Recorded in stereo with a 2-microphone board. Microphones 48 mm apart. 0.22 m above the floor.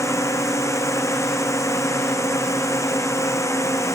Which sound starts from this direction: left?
A drone, at 0.0 s.